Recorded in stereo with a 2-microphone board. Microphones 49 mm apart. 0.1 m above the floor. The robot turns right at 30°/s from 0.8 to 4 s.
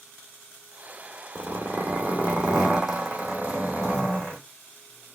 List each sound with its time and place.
1.4 s a zipper: 55° right, 2.5 m; by 4.4 s 25° left, 2.5 m